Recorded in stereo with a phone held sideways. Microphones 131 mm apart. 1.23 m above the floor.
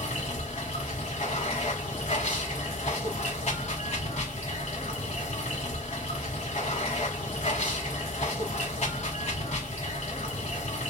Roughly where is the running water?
Left.